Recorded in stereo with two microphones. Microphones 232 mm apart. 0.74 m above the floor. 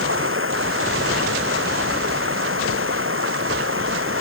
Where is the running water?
65° right (ahead or behind).